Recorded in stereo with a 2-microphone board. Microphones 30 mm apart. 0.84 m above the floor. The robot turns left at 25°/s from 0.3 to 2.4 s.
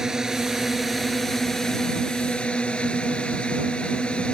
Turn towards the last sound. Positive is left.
turn(degrees=150)